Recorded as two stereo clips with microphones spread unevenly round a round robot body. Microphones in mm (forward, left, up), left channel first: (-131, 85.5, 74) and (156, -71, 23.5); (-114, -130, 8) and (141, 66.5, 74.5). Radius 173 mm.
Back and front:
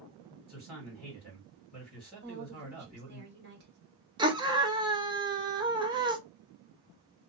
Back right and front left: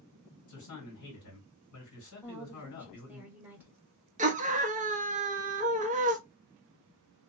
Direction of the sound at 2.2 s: 55° right.